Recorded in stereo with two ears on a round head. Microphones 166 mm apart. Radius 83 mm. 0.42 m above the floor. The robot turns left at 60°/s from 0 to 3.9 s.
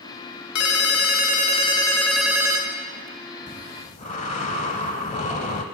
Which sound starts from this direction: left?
A ringtone, at 0.6 s.